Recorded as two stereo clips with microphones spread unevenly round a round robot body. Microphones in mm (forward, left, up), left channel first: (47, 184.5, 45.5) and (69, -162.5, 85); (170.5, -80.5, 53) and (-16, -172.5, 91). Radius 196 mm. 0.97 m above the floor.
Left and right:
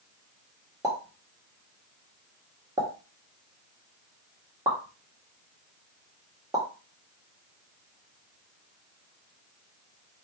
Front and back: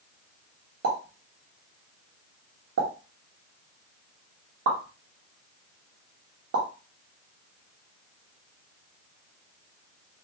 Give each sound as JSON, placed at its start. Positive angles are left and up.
{"t": 0.8, "sound": "a pop", "azimuth_deg": -170, "distance_m": 1.3}